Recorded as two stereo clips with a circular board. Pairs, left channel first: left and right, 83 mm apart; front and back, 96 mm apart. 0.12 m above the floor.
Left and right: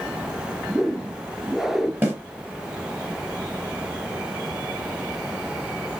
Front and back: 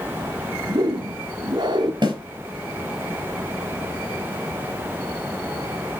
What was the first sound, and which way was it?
A whoosh, 175° right.